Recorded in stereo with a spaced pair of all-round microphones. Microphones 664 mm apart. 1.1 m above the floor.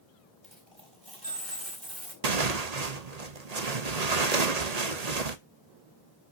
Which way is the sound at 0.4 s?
40° right (ahead or behind).